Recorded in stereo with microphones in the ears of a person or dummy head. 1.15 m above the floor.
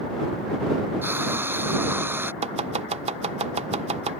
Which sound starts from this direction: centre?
Frying, at 1.0 s.